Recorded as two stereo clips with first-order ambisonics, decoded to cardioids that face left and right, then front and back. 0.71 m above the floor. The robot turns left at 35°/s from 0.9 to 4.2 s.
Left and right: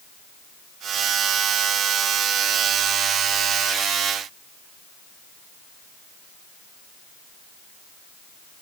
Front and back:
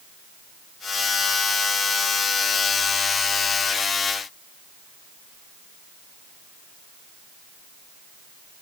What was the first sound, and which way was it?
Only background noise.